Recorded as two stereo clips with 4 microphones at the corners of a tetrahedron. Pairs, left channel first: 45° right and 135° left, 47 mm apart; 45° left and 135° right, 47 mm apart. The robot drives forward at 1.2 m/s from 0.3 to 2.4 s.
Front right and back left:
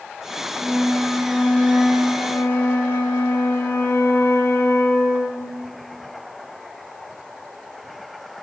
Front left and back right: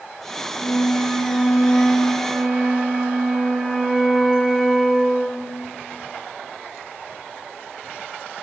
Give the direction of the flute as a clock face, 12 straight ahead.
12 o'clock.